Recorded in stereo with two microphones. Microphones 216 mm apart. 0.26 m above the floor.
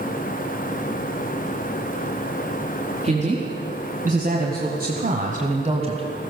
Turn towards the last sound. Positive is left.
turn(degrees=-25)  # may be behind; listen again after turning